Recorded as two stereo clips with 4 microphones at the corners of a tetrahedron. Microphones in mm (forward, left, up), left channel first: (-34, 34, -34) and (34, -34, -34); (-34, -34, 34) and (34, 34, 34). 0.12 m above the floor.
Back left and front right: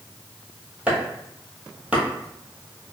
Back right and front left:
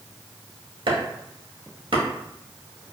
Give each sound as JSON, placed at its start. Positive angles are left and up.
{"t": 0.9, "sound": "chopping", "azimuth_deg": 30, "distance_m": 0.9}